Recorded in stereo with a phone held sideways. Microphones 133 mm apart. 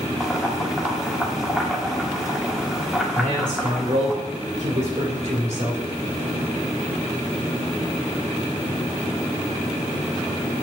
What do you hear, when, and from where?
0.2 s boiling: 5° right (ahead or behind), 1.2 m
3.1 s a man speaking: 65° right (ahead or behind), 3 m